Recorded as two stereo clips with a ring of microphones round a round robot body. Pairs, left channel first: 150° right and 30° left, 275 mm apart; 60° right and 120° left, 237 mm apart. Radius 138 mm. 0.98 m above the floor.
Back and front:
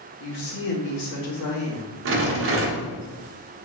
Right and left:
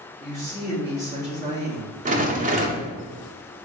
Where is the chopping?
I don't hear chopping.